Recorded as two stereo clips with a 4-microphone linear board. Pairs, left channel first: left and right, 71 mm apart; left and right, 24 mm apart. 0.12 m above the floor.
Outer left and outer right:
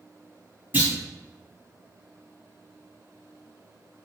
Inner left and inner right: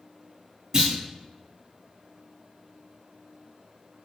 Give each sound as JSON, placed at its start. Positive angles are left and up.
{"t": 0.7, "sound": "a clunk", "side_deg": -30, "distance_m": 1.9}